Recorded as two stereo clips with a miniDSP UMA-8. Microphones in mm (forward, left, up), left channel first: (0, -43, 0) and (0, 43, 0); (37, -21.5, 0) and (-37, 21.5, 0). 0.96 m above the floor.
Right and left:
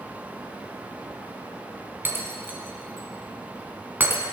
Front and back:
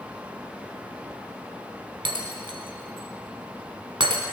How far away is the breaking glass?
About 1.9 m.